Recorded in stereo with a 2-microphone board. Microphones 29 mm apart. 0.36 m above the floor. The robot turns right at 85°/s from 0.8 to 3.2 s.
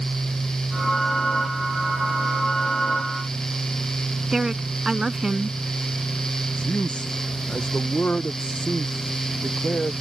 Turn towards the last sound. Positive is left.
turn(degrees=40)  # may be behind; listen again after turning